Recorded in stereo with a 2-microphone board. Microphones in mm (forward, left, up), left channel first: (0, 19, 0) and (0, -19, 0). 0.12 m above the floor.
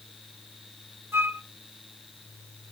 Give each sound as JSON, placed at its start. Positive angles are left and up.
{"t": 1.1, "sound": "a flute", "side_deg": -65, "distance_m": 0.5}